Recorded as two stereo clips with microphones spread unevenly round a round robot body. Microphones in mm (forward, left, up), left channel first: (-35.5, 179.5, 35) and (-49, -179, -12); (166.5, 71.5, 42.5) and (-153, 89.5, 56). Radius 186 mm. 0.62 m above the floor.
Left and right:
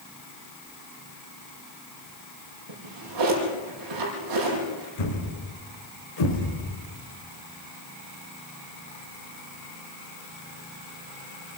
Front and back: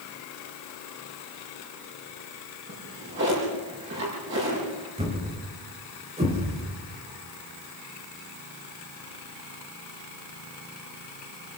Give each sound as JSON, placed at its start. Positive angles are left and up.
{"t": 2.7, "sound": "a drawer", "azimuth_deg": -125, "distance_m": 7.5}
{"t": 5.0, "sound": "a thud", "azimuth_deg": 105, "distance_m": 5.5}